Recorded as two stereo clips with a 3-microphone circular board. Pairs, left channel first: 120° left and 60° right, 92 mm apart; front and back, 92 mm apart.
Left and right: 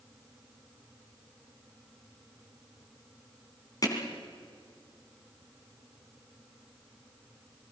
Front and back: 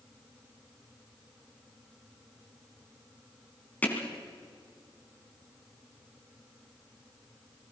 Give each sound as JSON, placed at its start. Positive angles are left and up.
{"t": 3.8, "sound": "hammering", "azimuth_deg": 70, "distance_m": 3.0}